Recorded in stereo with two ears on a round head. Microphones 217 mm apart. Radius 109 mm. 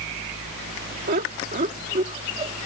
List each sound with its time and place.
1.1 s laughter: 40° right (ahead or behind); by 2.5 s 25° right (ahead or behind)